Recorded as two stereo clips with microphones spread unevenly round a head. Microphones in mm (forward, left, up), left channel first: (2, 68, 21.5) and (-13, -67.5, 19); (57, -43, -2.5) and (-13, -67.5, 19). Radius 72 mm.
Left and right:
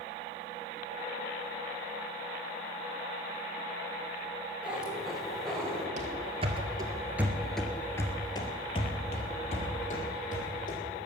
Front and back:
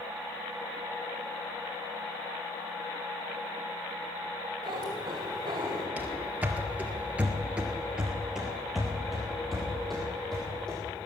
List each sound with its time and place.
4.6 s a cat meowing: straight behind, 3 m; by 5.9 s 165° left, 3 m
6.0 s running footsteps: 115° right, 1.9 m; by 10.8 s 110° left, 3.5 m